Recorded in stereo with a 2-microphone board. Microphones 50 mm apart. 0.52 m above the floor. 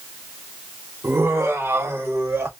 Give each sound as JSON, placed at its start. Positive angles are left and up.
{"t": 1.0, "sound": "laughter", "side_deg": -50, "distance_m": 0.9}